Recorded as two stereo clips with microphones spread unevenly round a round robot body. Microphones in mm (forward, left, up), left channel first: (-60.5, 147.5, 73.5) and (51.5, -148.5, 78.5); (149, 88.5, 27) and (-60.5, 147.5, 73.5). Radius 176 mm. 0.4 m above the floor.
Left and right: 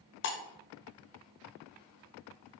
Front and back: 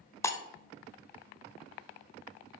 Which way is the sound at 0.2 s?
60° left.